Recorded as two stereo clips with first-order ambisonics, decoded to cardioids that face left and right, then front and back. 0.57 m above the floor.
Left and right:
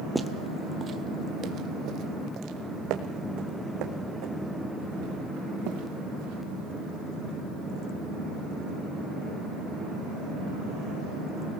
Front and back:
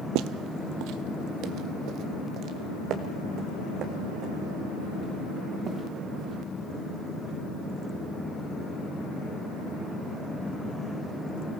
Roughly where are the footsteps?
Behind.